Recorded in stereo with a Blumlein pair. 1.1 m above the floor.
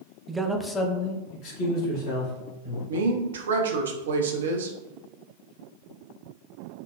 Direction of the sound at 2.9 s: 65° right.